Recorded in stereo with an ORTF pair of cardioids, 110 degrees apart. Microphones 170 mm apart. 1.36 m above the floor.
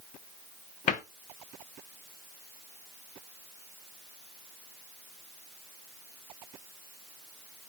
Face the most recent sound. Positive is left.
turn(degrees=50)